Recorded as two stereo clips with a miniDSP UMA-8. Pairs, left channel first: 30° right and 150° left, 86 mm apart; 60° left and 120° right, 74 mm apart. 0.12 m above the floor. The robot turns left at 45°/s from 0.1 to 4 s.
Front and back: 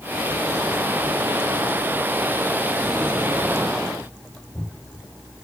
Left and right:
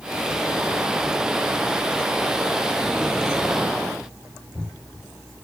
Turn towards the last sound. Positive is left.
No sound to turn to.